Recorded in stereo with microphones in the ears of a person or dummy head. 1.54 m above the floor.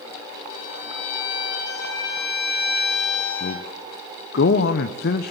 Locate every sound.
0.5 s a violin: 65° left (ahead or behind), 8.5 m
3.4 s a man speaking: 60° left (ahead or behind), 1.1 m